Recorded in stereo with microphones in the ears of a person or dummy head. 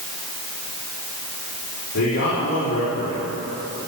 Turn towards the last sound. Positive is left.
turn(degrees=85)